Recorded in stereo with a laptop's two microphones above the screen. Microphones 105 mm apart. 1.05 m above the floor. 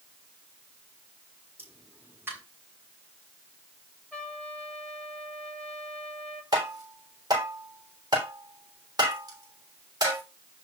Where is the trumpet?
5° left (ahead or behind), 3.5 m.